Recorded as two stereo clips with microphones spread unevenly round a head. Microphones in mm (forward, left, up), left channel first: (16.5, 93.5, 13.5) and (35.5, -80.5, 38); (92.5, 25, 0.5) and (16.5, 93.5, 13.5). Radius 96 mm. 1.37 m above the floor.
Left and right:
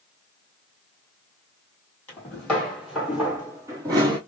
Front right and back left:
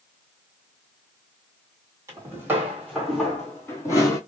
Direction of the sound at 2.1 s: Straight behind.